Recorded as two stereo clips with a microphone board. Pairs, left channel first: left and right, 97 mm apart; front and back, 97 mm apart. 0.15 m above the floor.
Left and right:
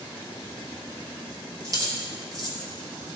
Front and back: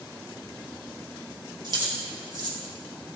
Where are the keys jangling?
140° right, 2.5 m.